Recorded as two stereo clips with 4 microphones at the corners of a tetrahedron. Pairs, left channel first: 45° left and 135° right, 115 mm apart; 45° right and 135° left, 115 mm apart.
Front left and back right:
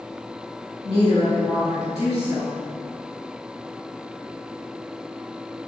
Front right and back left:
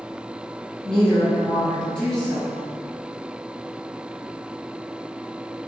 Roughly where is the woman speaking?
Ahead left.